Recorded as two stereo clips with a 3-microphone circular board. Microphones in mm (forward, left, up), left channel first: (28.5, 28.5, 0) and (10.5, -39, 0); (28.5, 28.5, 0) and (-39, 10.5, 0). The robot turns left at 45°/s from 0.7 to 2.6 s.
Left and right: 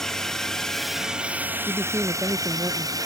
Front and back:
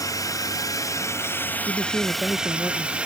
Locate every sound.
0.0 s a drone: 5° right; by 3.1 s 95° right
1.7 s a man speaking: 10° right; by 3.0 s 55° right